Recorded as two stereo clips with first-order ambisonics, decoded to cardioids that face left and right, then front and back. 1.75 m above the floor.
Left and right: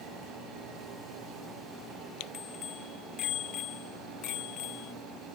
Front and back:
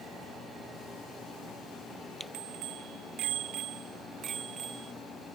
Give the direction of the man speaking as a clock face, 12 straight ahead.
No man speaking in this recording.